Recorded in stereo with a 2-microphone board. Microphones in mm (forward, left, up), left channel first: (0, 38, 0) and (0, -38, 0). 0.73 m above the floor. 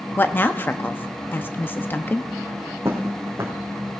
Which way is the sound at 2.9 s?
30° right (ahead or behind).